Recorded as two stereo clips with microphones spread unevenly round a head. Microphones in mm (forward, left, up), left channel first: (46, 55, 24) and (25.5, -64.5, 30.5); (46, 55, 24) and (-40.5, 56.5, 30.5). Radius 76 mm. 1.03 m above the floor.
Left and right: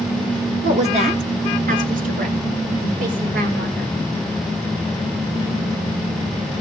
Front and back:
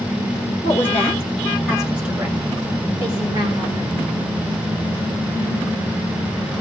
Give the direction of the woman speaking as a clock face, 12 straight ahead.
2 o'clock.